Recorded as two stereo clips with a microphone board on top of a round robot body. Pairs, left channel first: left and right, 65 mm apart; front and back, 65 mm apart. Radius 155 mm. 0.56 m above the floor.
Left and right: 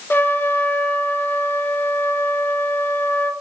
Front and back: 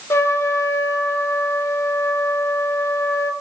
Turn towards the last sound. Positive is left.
turn(degrees=35)